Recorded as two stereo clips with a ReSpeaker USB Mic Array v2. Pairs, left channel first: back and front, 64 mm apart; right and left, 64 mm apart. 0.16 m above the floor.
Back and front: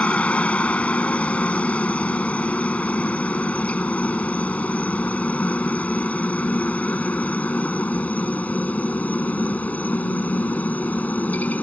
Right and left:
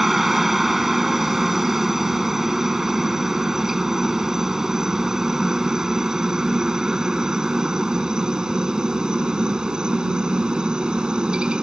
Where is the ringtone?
I don't hear a ringtone.